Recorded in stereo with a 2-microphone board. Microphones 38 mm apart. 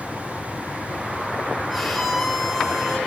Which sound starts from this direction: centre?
A violin, at 1.7 s.